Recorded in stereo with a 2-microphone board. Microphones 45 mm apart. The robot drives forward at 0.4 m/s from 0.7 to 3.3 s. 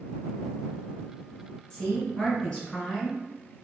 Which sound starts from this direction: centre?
A woman speaking, at 1.7 s.